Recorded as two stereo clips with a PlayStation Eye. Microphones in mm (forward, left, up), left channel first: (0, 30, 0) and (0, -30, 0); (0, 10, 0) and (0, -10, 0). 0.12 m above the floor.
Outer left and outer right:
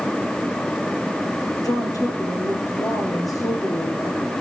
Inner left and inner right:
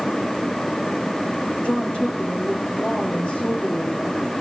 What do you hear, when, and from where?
1.6 s a woman speaking: 80° left, 7 m